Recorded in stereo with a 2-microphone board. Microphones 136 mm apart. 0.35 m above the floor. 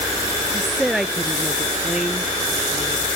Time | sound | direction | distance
0.5 | a woman speaking | centre (ahead or behind) | ?